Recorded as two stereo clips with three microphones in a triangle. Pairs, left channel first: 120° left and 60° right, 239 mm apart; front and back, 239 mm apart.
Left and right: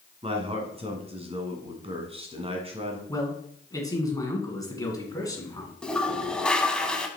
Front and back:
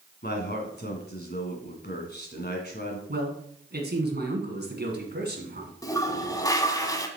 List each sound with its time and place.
0.2 s a man speaking: 5° right, 1.7 m
3.1 s a man speaking: 170° right, 1.6 m
5.8 s a toilet flushing: 40° left, 0.8 m